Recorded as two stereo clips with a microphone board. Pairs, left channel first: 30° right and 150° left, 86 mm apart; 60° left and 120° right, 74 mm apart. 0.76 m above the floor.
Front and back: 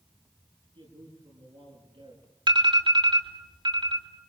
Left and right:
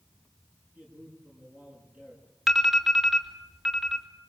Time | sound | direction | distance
0.8 | a man speaking | 170° left | 8.5 m
2.5 | an alarm | 155° left | 4 m